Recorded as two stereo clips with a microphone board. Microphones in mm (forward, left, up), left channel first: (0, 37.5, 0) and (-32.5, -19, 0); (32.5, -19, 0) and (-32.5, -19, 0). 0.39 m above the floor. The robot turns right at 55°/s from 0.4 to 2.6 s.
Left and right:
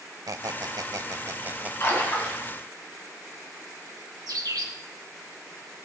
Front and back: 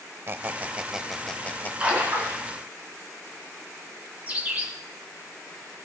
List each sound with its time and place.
0.3 s a squeak: 130° right, 0.5 m; by 1.7 s 60° right, 0.5 m
1.8 s a splash: 110° left, 3.5 m; by 2.4 s 145° left, 3.5 m
4.3 s a bird: 110° right, 3 m